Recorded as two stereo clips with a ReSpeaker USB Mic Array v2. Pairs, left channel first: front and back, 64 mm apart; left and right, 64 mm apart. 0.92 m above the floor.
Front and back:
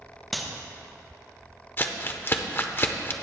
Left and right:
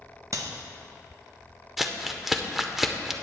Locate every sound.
0.3 s a clap: 90° right, 0.9 m
1.8 s crumpling: 5° right, 0.6 m